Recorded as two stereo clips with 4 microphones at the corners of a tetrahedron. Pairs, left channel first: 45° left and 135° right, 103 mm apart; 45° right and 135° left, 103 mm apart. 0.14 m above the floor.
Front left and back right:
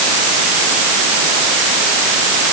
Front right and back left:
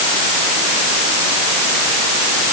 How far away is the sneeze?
No sneeze in this recording.